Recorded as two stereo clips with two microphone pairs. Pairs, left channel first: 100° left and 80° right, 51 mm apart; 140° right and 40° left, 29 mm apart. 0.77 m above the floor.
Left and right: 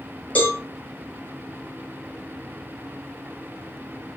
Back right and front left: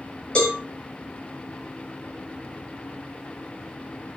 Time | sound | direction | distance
0.3 | a cowbell | 165° left | 4 m